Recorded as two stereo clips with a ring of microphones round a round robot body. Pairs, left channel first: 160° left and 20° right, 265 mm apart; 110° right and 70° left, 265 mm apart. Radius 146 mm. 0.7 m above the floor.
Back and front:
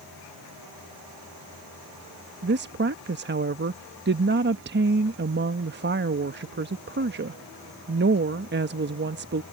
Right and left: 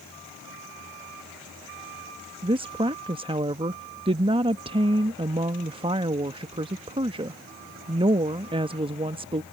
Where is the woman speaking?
5° left.